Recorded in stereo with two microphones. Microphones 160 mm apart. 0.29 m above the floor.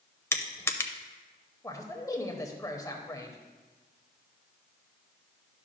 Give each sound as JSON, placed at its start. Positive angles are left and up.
{"t": 0.3, "sound": "crushing", "side_deg": 15, "distance_m": 0.6}
{"t": 1.6, "sound": "a man speaking", "side_deg": 20, "distance_m": 1.0}